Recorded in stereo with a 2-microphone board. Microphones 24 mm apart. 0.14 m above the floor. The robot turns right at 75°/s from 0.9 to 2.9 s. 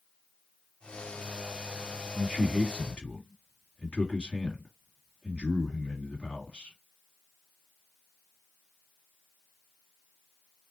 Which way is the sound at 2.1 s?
45° left.